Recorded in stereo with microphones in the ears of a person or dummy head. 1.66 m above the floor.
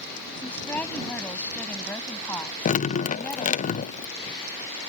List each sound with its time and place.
0.3 s a woman speaking: 10° left (ahead or behind)
2.6 s dripping: 45° left (ahead or behind)